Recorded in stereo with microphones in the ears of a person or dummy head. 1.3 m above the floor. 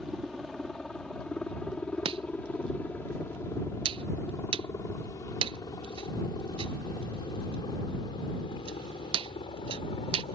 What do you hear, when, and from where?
0.0 s a helicopter: centre (ahead or behind); by 10.3 s 25° left (ahead or behind)
2.0 s chopping: 30° right (ahead or behind)